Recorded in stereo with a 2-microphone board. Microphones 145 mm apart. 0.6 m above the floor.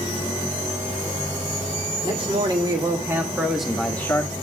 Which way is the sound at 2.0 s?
35° right (ahead or behind).